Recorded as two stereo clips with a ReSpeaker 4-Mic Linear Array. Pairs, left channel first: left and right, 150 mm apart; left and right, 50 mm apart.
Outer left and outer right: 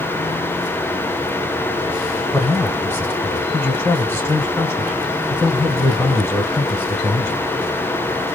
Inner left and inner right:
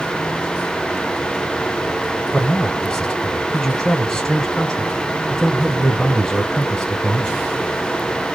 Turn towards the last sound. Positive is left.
turn(degrees=15)  # may be behind; listen again after turning